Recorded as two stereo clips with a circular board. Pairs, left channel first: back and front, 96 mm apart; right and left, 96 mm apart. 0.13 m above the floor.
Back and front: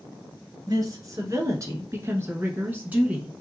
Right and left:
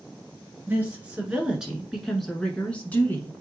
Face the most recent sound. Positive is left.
turn(degrees=-65)